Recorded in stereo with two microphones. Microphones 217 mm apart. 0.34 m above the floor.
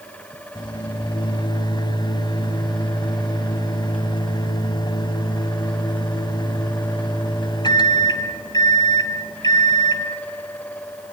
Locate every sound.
0.6 s a microwave: 20° left (ahead or behind), 1.4 m